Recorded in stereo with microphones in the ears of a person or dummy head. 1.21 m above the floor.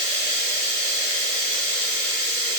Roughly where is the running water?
Left.